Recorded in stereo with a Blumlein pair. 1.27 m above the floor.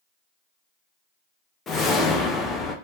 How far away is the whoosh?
About 0.9 m.